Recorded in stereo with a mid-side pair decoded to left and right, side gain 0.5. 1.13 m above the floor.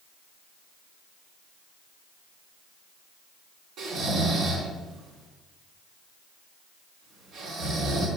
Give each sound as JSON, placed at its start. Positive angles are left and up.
{"t": 3.8, "sound": "snoring", "azimuth_deg": -65, "distance_m": 4.0}